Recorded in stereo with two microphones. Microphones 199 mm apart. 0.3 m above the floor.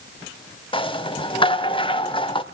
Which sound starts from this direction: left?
A rattle, at 0.7 s.